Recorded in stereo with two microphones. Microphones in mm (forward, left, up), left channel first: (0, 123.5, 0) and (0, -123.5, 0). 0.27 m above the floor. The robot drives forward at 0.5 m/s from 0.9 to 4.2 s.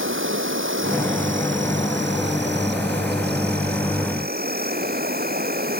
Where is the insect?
55° right (ahead or behind); by 5.8 s 40° right (ahead or behind).